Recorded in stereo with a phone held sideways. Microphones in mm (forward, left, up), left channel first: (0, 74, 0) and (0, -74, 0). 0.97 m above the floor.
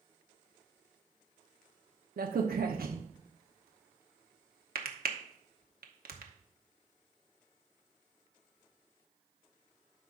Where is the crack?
90° right, 1.0 m.